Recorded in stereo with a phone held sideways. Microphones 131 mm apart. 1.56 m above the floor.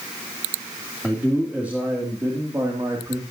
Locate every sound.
1.0 s a man speaking: 5° right (ahead or behind), 3 m; by 3.2 s 30° right (ahead or behind), 3 m